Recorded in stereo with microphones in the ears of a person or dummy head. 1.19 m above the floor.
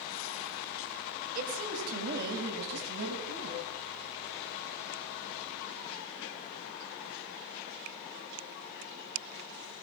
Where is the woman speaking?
45° right (ahead or behind), 5.5 m; by 3.7 s 65° right (ahead or behind), 8 m.